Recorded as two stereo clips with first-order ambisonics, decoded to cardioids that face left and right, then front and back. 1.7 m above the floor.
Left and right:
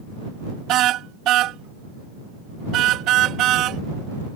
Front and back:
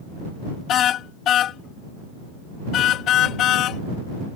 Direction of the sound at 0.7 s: 50° right.